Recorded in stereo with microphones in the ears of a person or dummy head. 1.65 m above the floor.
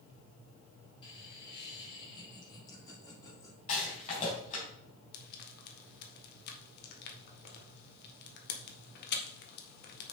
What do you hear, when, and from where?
1.0 s laughter: 30° left (ahead or behind), 5 m; by 3.6 s 20° left (ahead or behind), 3.5 m
3.7 s a rattle: 40° left (ahead or behind), 4 m
5.1 s frying: 55° left (ahead or behind), 1.7 m